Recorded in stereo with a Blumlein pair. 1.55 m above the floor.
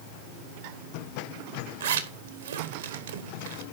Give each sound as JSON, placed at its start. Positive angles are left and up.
{"t": 1.8, "sound": "a zipper", "azimuth_deg": -60, "distance_m": 1.6}